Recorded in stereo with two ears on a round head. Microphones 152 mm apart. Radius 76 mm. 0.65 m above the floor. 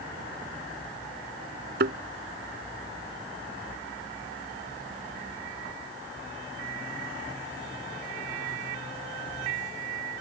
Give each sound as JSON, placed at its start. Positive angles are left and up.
{"t": 1.8, "sound": "a thud", "side_deg": -60}